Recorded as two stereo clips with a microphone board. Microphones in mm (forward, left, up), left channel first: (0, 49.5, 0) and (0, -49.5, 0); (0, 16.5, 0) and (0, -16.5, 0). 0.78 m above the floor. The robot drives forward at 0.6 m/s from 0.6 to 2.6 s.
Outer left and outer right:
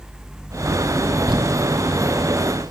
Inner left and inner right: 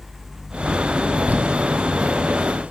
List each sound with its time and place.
1.3 s crumpling: 55° right (ahead or behind), 2.0 m; by 2.7 s 40° right (ahead or behind), 2.5 m